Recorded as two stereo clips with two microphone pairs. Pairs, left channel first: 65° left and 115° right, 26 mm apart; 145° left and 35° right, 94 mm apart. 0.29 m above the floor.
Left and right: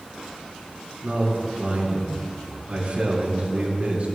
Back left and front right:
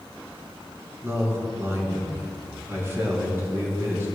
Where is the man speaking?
95° right, 4 m.